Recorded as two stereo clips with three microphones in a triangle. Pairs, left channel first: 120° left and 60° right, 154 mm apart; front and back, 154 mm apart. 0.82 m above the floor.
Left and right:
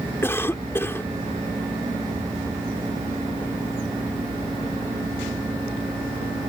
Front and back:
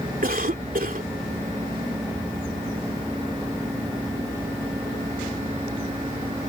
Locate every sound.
0.2 s a cough: 165° right